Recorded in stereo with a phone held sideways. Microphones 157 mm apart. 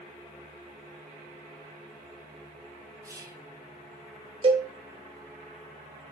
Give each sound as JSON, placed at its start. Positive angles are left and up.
{"t": 3.0, "sound": "whispering", "side_deg": -20, "distance_m": 0.7}
{"t": 4.4, "sound": "a cowbell", "side_deg": -35, "distance_m": 0.8}